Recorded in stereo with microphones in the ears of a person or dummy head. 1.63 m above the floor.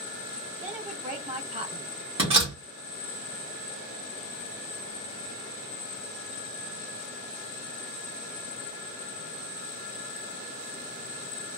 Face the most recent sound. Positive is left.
turn(degrees=-30)  # may be behind; listen again after turning